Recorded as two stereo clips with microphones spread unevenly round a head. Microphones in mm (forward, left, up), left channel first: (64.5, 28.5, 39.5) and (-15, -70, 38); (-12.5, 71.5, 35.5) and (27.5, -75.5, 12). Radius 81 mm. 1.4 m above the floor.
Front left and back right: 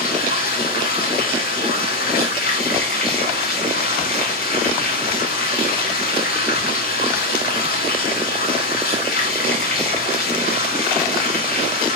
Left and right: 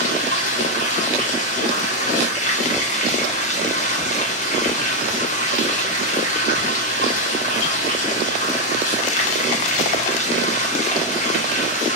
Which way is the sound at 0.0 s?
65° left.